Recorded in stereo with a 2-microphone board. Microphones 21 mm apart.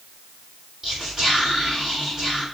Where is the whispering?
30° right (ahead or behind), 1.6 m.